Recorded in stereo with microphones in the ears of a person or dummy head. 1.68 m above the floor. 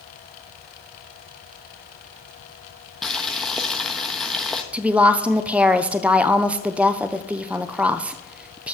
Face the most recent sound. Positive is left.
turn(degrees=0)  # may be behind; listen again after turning